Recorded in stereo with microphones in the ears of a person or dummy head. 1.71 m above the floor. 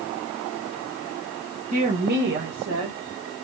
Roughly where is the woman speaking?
Right.